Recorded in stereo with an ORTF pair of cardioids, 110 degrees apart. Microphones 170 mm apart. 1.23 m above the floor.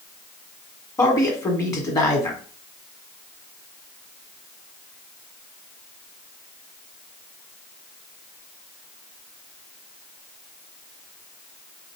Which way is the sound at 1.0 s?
20° left.